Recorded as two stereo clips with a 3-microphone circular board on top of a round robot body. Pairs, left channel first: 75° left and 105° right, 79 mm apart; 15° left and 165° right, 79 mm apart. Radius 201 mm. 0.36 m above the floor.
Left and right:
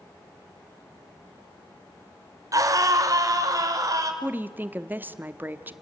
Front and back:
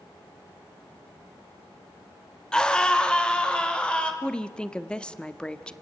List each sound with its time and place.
2.5 s a scream: 65° right, 2 m; by 4.1 s 60° right, 3.5 m
4.2 s a woman speaking: 55° right, 1.3 m